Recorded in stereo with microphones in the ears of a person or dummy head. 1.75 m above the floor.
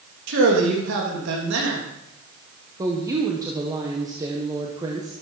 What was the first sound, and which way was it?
A man speaking, 75° right (ahead or behind).